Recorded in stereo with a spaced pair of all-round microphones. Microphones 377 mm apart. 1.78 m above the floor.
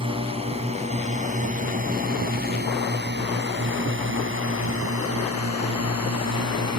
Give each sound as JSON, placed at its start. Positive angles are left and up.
{"t": 0.0, "sound": "a drone", "side_deg": -15}